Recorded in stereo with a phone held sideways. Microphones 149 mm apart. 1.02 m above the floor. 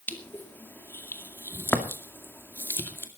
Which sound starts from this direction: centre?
Crushing, at 0.1 s.